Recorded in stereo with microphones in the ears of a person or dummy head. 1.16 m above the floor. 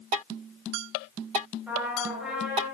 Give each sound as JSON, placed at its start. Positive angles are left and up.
{"t": 1.7, "sound": "a trumpet", "side_deg": -5, "distance_m": 3.5}